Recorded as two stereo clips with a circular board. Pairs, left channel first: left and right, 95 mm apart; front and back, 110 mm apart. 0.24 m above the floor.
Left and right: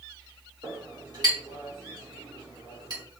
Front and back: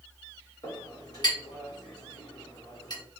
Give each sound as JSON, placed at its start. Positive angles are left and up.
{"t": 0.6, "sound": "a clink", "azimuth_deg": -45, "distance_m": 1.7}